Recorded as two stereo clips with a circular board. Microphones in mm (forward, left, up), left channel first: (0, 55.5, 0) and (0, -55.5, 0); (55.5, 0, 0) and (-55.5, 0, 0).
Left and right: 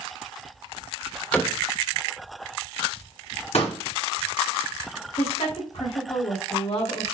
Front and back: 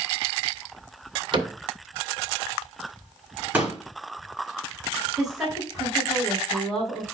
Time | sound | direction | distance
1.3 | a cupboard door | 165° left | 1.7 m
3.5 | a pop | 105° left | 4.5 m
5.2 | a woman speaking | 95° left | 4.5 m